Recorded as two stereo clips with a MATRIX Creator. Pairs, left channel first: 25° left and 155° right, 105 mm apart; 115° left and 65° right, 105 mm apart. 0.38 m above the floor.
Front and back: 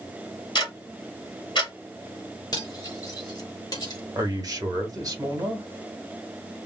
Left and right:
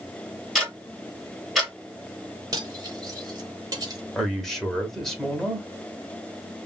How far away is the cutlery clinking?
About 1.0 m.